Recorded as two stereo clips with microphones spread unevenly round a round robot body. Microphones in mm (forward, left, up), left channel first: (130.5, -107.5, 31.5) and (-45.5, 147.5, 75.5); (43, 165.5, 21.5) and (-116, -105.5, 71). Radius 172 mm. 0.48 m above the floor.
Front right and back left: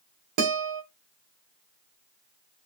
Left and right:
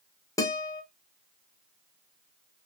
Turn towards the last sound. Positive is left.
turn(degrees=135)